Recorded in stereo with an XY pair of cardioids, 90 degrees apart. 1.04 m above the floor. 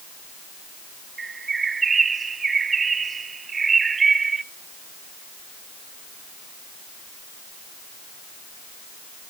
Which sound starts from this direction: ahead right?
A bird, at 1.2 s.